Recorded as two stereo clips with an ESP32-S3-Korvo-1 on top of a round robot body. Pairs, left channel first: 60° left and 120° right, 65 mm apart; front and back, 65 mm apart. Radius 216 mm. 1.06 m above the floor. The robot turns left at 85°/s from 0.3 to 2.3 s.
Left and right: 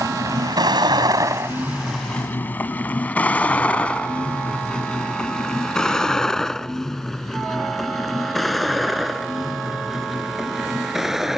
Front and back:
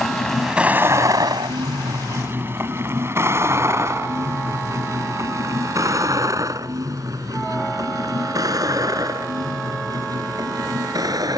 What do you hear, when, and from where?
0.0 s a vehicle: 85° right; by 11.4 s 155° left